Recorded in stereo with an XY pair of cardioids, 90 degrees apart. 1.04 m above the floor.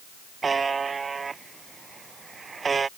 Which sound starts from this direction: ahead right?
A buzzer, at 0.4 s.